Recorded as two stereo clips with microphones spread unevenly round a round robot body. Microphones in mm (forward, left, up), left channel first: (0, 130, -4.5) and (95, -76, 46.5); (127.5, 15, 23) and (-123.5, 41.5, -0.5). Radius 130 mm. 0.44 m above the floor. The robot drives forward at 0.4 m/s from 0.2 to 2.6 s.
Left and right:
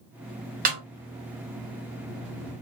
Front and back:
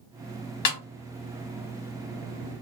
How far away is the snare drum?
About 1.2 m.